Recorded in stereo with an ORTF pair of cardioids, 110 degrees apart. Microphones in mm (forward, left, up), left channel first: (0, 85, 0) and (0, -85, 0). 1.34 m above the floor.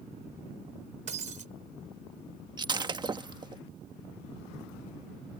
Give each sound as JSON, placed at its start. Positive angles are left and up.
{"t": 1.1, "sound": "breaking glass", "azimuth_deg": -45}
{"t": 2.6, "sound": "breaking glass", "azimuth_deg": -25}